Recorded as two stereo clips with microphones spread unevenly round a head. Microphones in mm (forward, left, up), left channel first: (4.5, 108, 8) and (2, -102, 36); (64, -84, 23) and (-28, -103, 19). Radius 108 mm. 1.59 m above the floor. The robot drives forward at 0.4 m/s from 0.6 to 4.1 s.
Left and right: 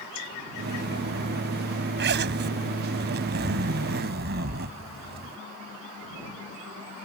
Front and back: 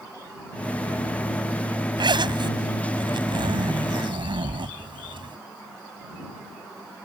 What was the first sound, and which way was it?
A zipper, 130° right.